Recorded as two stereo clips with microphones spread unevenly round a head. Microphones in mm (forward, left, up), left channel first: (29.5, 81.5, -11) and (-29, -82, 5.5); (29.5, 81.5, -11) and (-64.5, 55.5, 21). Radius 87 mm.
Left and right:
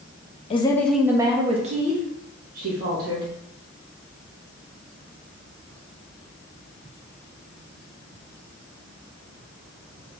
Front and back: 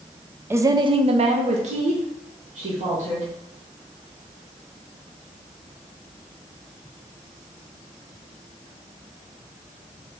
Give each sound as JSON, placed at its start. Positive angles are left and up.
{"t": 0.5, "sound": "a woman speaking", "azimuth_deg": 115, "distance_m": 0.6}